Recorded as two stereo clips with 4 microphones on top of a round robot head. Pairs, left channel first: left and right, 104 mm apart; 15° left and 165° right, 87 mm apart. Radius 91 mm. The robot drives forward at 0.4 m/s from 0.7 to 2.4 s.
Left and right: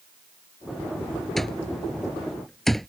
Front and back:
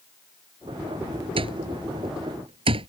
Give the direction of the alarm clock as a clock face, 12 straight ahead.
6 o'clock.